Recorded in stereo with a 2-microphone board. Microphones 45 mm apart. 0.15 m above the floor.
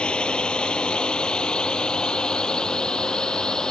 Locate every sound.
0.0 s a drone: 20° left (ahead or behind); by 3.7 s 15° left (ahead or behind)